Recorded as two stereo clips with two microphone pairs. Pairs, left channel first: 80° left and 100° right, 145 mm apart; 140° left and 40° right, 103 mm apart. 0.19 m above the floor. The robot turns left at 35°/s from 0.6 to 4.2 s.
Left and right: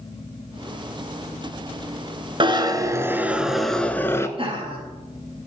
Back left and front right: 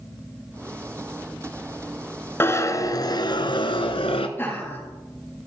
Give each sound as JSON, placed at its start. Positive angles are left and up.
{"t": 2.4, "sound": "a zipper", "azimuth_deg": -150, "distance_m": 1.0}
{"t": 4.4, "sound": "laughter", "azimuth_deg": -150, "distance_m": 5.0}